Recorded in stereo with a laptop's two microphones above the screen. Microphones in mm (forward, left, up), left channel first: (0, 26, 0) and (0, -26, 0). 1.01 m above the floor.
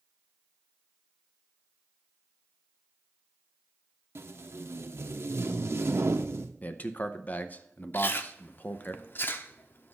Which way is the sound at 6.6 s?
30° left (ahead or behind).